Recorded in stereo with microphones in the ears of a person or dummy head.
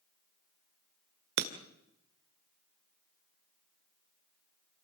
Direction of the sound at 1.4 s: 65° right (ahead or behind).